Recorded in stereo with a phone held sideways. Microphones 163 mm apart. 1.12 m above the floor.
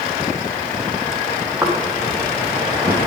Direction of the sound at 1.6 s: 15° right (ahead or behind).